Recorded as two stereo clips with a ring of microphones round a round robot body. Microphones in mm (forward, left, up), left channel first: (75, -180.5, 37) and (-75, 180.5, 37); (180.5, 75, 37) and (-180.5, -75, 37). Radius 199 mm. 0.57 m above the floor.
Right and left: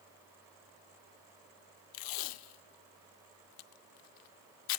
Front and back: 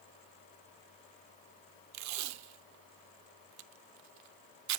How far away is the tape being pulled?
About 0.6 m.